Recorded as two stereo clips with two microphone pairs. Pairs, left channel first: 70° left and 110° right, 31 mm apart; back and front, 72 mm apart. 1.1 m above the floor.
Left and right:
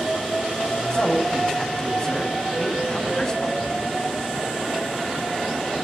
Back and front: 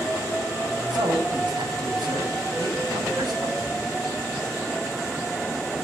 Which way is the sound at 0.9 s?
5° left.